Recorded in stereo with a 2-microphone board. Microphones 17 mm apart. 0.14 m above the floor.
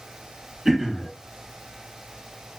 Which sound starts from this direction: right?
Throat clearing, at 0.7 s.